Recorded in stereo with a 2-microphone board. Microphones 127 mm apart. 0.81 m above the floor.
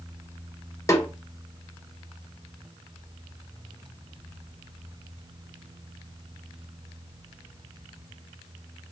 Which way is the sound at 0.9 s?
25° left (ahead or behind).